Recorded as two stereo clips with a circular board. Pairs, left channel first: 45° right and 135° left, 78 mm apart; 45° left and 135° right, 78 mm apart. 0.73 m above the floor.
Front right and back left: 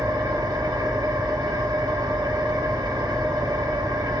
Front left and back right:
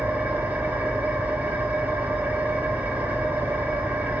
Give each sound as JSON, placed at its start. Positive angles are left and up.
{"t": 0.0, "sound": "an engine running", "azimuth_deg": 160, "distance_m": 0.9}